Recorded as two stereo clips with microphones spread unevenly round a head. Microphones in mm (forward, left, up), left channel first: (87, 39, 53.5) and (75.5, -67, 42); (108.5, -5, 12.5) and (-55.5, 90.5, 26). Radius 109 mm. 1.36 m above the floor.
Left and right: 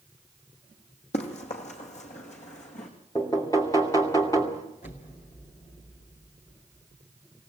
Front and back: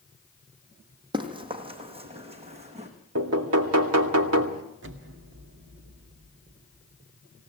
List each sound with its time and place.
1.1 s running footsteps: 85° left, 3 m; by 2.9 s 95° left, 5 m
3.1 s knocking: 155° left, 2.5 m
4.8 s an explosion: 130° left, 2.5 m